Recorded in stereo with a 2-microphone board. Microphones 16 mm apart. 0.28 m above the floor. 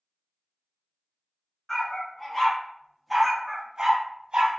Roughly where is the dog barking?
Left.